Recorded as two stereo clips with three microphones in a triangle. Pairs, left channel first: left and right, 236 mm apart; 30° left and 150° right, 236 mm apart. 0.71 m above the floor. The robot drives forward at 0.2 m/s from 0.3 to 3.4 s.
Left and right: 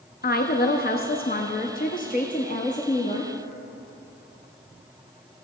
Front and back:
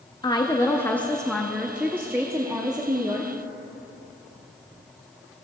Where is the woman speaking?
90° left, 0.6 m; by 3.3 s 145° left, 0.8 m.